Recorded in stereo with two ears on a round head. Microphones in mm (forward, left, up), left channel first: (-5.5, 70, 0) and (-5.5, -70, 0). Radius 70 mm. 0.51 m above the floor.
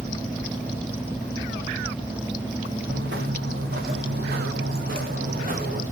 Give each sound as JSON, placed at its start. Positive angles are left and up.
{"t": 2.9, "sound": "footsteps", "side_deg": -80, "distance_m": 4.5}